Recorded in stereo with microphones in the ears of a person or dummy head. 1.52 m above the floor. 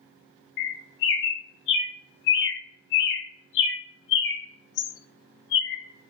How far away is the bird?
About 0.6 m.